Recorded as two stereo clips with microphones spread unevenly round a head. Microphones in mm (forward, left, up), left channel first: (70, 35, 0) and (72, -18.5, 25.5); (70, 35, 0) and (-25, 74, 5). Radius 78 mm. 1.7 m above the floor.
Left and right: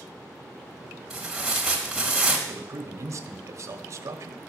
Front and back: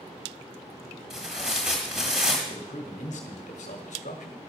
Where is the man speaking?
60° right, 1.3 m.